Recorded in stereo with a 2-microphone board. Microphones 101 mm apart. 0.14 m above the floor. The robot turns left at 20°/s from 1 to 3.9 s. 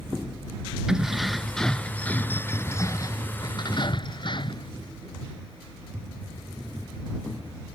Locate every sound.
0.9 s keys jangling: 175° right; by 4.7 s 130° left